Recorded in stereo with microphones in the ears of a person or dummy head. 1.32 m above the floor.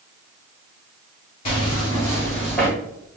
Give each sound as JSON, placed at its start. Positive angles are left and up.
{"t": 1.4, "sound": "footsteps", "side_deg": 25, "distance_m": 1.5}